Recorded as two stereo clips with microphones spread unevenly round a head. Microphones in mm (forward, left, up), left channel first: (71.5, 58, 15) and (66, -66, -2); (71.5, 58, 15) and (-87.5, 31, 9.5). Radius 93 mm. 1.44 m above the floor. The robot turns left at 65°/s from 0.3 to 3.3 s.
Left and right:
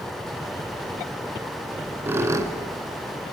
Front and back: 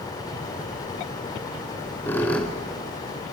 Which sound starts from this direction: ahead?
A squeak, at 1.7 s.